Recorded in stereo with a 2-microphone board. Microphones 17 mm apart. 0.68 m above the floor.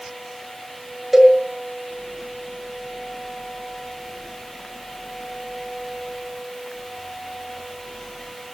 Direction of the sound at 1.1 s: 15° right (ahead or behind).